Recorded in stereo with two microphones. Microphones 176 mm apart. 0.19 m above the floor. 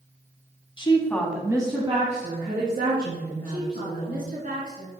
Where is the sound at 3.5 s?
55° right (ahead or behind), 2.0 m.